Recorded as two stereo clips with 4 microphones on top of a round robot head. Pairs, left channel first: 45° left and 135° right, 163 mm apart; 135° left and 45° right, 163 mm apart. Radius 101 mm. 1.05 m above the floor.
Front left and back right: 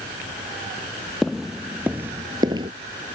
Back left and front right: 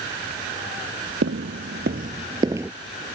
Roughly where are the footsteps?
Ahead right.